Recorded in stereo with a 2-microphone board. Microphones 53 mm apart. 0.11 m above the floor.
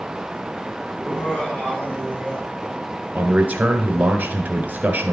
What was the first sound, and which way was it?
Laughter, 20° left (ahead or behind).